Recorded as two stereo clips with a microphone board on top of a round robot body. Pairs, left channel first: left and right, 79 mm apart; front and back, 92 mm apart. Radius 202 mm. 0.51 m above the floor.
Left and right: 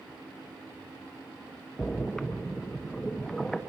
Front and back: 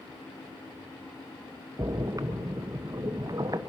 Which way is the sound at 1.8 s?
175° left.